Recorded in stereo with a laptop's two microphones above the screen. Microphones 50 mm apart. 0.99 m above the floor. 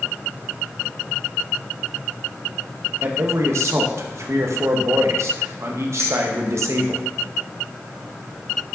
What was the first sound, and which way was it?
A man speaking, 60° right (ahead or behind).